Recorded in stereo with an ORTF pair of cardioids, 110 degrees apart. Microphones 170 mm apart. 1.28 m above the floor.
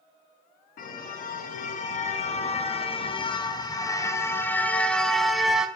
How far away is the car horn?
About 6 m.